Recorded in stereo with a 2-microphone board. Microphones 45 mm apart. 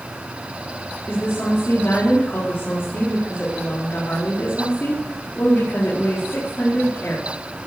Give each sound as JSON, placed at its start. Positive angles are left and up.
{"t": 1.1, "sound": "a woman speaking", "side_deg": 65, "distance_m": 4.5}